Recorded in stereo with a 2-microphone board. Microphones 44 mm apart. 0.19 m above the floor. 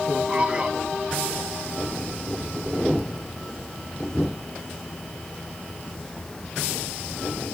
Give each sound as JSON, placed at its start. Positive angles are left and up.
{"t": 0.3, "sound": "a man speaking", "side_deg": -25, "distance_m": 1.2}